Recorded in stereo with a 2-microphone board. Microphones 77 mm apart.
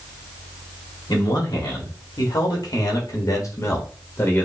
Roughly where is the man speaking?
Left.